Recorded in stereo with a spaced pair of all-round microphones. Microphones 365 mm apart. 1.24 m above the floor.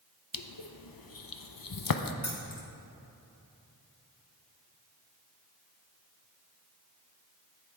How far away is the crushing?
About 0.6 m.